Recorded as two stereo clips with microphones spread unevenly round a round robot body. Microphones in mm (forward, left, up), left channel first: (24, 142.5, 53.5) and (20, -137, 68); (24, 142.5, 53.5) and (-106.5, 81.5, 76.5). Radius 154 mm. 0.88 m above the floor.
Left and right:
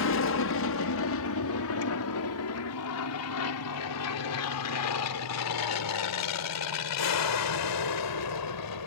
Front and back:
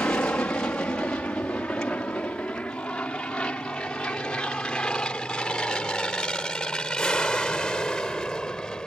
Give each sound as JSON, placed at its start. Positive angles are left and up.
{"t": 0.0, "sound": "an aircraft", "azimuth_deg": 100}